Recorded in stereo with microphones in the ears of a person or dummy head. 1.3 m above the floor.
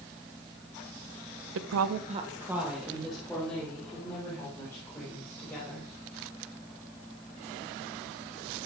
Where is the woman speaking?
70° right (ahead or behind), 0.7 m; by 5.9 s 15° left (ahead or behind), 6 m.